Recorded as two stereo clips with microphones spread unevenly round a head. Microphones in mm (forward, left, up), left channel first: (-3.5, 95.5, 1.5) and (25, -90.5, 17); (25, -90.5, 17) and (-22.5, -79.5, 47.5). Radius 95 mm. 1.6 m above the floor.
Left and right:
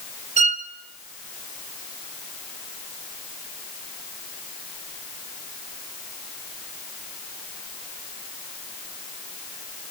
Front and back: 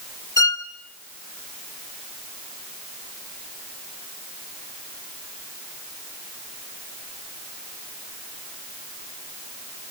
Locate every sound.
0.4 s a violin: 30° right, 1.4 m